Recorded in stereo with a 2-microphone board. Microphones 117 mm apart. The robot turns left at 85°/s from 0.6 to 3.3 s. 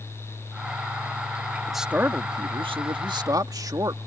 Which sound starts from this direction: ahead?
A man speaking, at 1.7 s.